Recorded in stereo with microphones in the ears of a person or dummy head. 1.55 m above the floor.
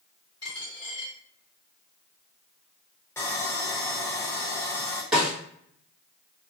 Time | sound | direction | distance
0.4 | a dropped coin | 25° left (ahead or behind) | 1.4 m
3.2 | sawing | 15° left (ahead or behind) | 0.5 m
5.1 | a snare drum | centre (ahead or behind) | 1.2 m